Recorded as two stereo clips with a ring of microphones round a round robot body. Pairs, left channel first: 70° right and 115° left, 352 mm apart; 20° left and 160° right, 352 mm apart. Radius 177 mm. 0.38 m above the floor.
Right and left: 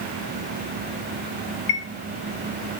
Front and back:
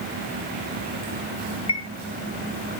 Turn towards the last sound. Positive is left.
turn(degrees=-55)